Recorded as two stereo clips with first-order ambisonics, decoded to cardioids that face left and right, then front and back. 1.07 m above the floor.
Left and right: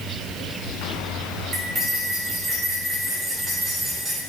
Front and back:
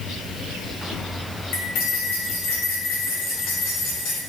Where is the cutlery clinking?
20° right, 2.5 m.